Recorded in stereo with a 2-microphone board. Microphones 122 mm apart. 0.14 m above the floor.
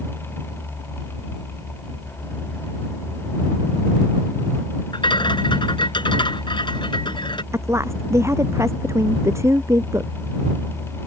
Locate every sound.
4.9 s a rattle: 40° left (ahead or behind)
7.5 s a woman speaking: 20° right (ahead or behind)